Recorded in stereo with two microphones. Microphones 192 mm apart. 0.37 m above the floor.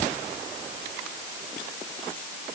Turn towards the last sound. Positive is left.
No sound to turn to.